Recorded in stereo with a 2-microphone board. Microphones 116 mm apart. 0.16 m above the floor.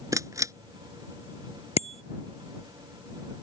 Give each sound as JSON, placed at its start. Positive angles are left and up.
{"t": 0.1, "sound": "a camera shutter", "side_deg": -30}
{"t": 1.8, "sound": "a bicycle bell", "side_deg": 65}